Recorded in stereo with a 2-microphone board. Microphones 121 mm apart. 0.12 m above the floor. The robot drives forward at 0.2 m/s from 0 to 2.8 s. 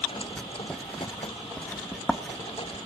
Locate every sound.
0.4 s writing: 10° left (ahead or behind), 0.6 m; by 2.8 s 5° left (ahead or behind), 0.9 m